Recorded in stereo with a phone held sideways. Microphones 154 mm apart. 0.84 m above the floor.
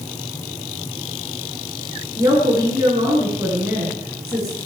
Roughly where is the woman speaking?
Right.